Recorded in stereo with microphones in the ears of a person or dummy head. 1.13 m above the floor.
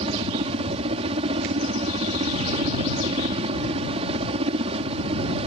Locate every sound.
0.0 s a helicopter: 35° right (ahead or behind)